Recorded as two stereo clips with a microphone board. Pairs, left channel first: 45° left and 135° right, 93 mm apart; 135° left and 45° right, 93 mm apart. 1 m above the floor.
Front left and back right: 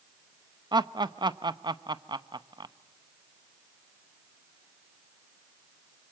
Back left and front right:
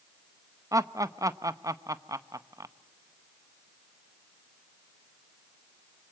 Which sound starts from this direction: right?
Laughter, at 0.7 s.